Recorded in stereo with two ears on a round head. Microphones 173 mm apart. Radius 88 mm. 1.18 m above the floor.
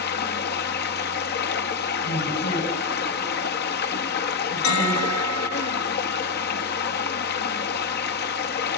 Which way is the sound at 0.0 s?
55° left (ahead or behind).